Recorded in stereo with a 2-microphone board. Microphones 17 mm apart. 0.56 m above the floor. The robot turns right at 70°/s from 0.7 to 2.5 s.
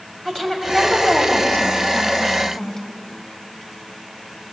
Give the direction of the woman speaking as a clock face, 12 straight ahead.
11 o'clock.